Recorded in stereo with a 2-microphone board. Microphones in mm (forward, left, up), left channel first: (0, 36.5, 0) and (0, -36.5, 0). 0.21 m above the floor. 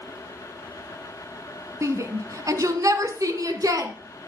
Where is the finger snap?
I don't hear a finger snap.